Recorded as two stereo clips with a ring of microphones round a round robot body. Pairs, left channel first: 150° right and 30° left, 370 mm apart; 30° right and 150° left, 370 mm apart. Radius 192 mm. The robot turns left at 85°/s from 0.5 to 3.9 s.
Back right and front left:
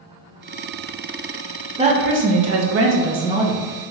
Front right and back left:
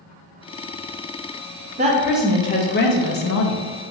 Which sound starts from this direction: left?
A woman speaking, at 1.8 s.